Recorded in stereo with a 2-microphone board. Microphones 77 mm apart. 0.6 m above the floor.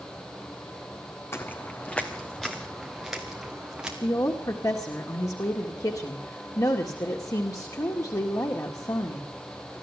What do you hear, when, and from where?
1.3 s footsteps: 30° left (ahead or behind), 1.7 m; by 3.9 s 10° right (ahead or behind), 4 m
4.0 s a woman speaking: 50° left (ahead or behind), 1.9 m